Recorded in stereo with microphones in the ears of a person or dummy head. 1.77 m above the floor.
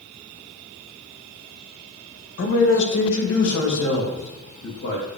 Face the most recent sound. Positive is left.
turn(degrees=85)